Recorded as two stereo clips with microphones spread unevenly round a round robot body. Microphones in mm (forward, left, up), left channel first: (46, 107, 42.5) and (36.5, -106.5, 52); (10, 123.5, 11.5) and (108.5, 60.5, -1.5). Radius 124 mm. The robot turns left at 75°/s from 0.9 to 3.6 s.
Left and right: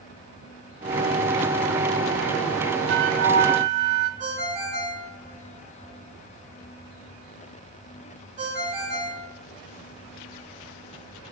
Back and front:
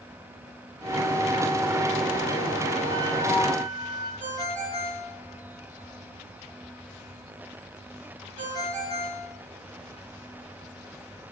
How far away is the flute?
About 1.2 m.